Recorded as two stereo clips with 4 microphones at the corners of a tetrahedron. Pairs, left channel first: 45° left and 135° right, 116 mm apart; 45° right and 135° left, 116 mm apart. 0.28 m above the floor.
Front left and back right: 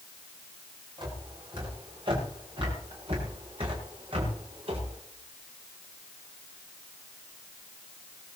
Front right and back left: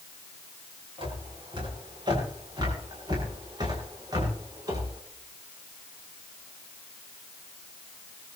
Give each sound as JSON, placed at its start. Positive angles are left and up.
{"t": 1.0, "sound": "footsteps", "azimuth_deg": 180, "distance_m": 8.5}